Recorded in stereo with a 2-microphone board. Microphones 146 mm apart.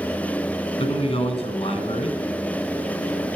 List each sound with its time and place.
0.8 s a man speaking: 40° left (ahead or behind), 1.8 m